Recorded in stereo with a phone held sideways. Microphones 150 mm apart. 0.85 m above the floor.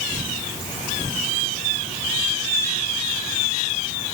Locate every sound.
Only background noise.